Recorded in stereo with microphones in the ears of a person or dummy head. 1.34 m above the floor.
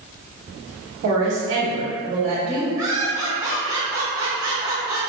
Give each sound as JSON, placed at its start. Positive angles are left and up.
{"t": 1.0, "sound": "a woman speaking", "side_deg": -70, "distance_m": 1.2}
{"t": 2.8, "sound": "laughter", "side_deg": -20, "distance_m": 1.4}